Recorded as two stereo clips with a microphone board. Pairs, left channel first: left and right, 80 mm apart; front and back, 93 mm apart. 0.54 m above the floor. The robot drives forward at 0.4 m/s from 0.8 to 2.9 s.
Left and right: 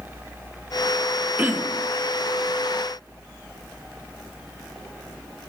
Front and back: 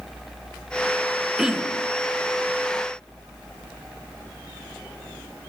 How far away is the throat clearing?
About 1.1 m.